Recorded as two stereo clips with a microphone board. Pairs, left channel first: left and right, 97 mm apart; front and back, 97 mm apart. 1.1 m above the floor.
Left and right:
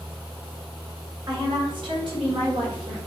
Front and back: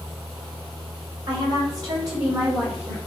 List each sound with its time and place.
1.3 s a woman speaking: 135° right, 3 m; by 3.0 s 120° right, 5 m